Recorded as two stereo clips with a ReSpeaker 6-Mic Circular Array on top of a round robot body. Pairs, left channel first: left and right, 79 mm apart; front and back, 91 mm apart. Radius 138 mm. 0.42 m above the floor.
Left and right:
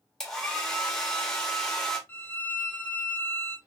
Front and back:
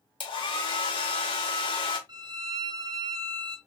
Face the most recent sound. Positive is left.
turn(degrees=150)